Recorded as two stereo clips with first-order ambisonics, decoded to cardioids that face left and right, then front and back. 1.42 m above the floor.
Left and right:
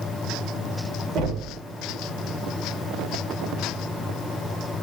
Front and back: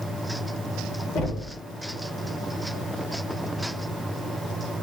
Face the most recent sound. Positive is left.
turn(degrees=-45)